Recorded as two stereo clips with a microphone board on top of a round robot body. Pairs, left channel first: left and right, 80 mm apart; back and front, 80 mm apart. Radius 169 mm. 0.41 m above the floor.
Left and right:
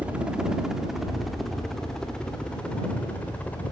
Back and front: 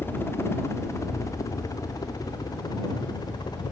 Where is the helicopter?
150° right; by 3.7 s 160° left.